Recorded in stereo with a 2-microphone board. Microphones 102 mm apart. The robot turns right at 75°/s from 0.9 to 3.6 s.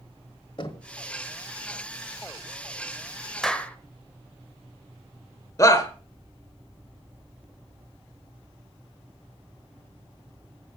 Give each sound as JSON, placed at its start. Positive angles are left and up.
{"t": 0.6, "sound": "knocking", "side_deg": 50, "distance_m": 1.4}
{"t": 3.4, "sound": "a clap", "side_deg": 5, "distance_m": 0.9}
{"t": 5.6, "sound": "a shout", "side_deg": 30, "distance_m": 1.1}